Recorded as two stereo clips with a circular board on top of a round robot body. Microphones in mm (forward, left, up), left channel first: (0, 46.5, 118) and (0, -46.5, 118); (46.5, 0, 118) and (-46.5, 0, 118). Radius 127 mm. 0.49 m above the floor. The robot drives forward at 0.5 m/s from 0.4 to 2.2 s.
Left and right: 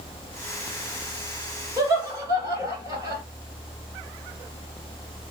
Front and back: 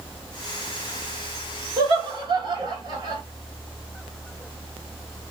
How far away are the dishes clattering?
I don't hear dishes clattering.